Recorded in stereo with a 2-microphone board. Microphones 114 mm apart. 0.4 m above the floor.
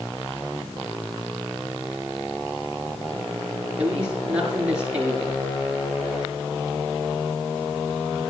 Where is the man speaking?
10° right (ahead or behind), 8 m.